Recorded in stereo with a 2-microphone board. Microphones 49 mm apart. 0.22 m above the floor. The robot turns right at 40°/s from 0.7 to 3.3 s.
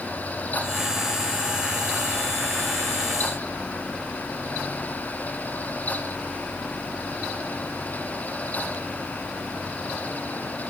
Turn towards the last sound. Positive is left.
No sound to turn to.